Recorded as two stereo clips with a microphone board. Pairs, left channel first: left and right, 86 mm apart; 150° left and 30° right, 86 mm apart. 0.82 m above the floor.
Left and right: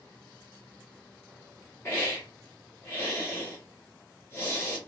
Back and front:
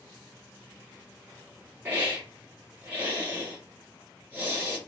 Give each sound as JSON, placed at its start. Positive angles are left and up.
{"t": 1.9, "sound": "a hiss", "azimuth_deg": 35, "distance_m": 1.5}